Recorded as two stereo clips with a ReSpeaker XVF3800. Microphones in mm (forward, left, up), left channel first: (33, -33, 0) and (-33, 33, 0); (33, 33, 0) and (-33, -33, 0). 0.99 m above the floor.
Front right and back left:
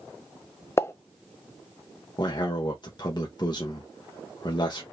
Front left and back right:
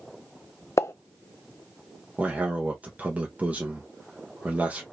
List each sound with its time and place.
0.8 s a pop: straight ahead, 0.6 m
2.2 s a man speaking: 65° right, 1.2 m